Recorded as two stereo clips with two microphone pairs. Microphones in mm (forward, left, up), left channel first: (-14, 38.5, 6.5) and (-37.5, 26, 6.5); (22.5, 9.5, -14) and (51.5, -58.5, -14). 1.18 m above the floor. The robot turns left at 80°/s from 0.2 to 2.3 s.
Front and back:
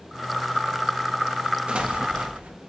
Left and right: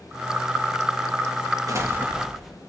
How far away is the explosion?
About 1.9 m.